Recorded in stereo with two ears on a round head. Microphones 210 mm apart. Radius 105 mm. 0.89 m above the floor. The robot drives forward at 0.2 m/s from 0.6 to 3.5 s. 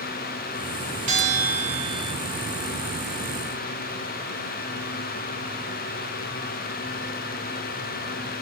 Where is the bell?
55° right (ahead or behind), 2 m; by 2.1 s 60° right (ahead or behind), 2 m.